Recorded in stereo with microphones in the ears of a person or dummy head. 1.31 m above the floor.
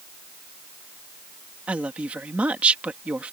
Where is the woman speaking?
5° right (ahead or behind).